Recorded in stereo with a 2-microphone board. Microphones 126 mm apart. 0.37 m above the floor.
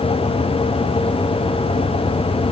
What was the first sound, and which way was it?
Only background noise.